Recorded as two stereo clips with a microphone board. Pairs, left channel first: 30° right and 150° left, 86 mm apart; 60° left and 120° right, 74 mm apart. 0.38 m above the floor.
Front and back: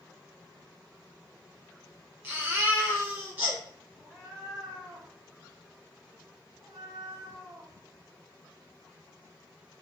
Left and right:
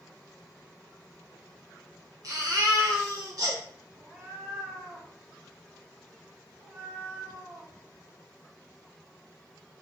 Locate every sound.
2.2 s a baby crying: 155° right, 1.8 m
4.0 s a cat meowing: 170° right, 1.9 m